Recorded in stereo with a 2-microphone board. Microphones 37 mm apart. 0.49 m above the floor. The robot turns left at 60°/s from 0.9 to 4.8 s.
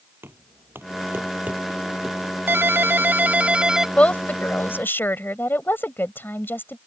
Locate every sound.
0.2 s knocking: 75° right (ahead or behind); by 2.2 s centre (ahead or behind)
2.5 s a ringtone: 85° right; by 3.9 s 165° right
4.0 s a woman speaking: 145° left; by 6.8 s 95° left